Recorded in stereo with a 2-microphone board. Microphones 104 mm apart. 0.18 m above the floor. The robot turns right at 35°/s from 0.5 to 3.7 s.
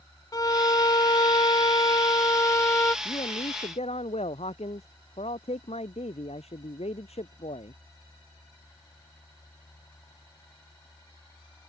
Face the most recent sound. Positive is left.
turn(degrees=85)